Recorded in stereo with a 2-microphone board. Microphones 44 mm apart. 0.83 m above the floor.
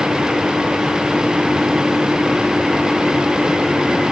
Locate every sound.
Only background noise.